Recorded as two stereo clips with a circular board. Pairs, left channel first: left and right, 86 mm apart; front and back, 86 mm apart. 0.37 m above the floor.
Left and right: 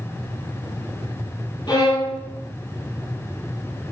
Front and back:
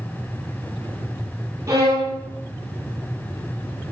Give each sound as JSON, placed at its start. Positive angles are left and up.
{"t": 1.7, "sound": "a violin", "azimuth_deg": 130, "distance_m": 5.0}